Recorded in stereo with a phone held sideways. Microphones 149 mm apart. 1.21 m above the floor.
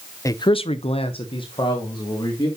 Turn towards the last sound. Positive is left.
turn(degrees=30)  # may be behind; listen again after turning